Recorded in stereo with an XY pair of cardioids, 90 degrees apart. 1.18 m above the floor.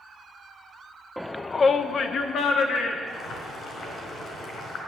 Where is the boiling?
65° left, 5 m.